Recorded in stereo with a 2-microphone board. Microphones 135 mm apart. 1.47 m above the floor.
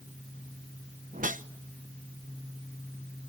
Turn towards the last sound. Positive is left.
turn(degrees=-70)  # may be behind; listen again after turning